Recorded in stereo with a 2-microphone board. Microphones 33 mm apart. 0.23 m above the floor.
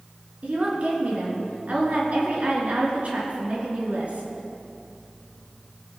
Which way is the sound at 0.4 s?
50° right (ahead or behind).